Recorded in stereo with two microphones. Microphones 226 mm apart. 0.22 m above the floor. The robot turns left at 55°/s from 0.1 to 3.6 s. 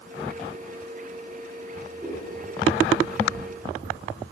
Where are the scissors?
20° right (ahead or behind), 2.5 m; by 4.3 s 50° right (ahead or behind), 2.5 m.